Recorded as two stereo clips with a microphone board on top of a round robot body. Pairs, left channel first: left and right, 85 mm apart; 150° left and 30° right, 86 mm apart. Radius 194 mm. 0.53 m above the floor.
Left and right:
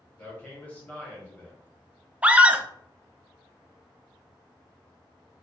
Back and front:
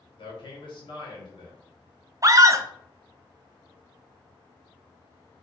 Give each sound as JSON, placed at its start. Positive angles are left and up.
{"t": 0.2, "sound": "a man speaking", "azimuth_deg": 160, "distance_m": 1.5}
{"t": 2.2, "sound": "a scream", "azimuth_deg": -25, "distance_m": 0.7}